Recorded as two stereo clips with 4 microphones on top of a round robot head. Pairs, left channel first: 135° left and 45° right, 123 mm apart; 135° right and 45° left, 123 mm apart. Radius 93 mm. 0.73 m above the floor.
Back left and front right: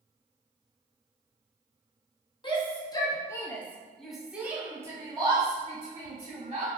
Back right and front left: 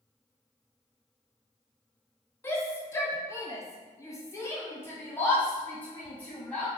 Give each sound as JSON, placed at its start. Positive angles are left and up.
{"t": 2.4, "sound": "a shout", "azimuth_deg": 160, "distance_m": 1.4}